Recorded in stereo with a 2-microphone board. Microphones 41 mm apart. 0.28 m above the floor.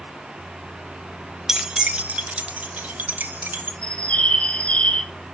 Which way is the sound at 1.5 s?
10° right (ahead or behind).